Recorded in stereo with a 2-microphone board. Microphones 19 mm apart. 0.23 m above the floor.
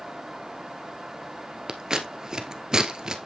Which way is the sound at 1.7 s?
35° right (ahead or behind).